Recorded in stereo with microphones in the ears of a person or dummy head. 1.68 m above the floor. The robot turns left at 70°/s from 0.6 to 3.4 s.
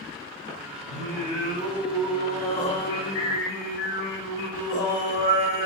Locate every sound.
0.9 s singing: 90° right, 1.3 m; by 5.7 s 95° left, 1.3 m